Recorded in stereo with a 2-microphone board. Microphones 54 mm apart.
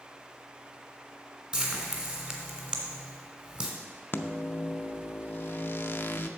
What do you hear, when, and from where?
1.5 s frying: 20° right (ahead or behind), 1.7 m
4.1 s a microwave: 40° left (ahead or behind), 0.5 m